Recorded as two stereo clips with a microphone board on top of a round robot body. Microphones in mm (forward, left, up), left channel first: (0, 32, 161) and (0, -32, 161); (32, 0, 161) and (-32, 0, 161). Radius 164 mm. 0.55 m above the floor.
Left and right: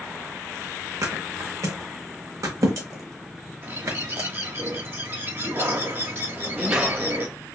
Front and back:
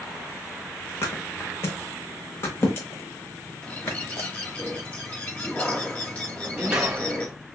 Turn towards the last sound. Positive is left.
turn(degrees=-135)